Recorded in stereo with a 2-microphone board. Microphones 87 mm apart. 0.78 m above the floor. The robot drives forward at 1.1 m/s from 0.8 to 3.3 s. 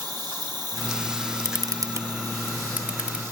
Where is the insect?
50° right (ahead or behind); by 3.3 s 30° right (ahead or behind).